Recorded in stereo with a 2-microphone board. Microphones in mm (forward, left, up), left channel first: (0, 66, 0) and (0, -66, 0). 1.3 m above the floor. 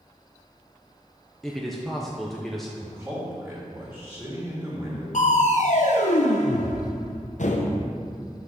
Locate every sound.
1.4 s a man speaking: centre (ahead or behind), 0.7 m
2.8 s a man speaking: 10° right (ahead or behind), 3 m
5.1 s crushing: 65° left (ahead or behind), 0.8 m